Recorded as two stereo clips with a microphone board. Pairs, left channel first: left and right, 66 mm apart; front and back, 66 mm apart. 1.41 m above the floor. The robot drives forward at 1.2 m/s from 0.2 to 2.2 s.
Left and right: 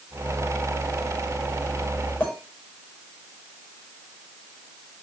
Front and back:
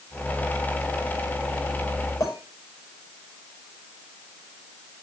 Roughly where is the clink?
Ahead left.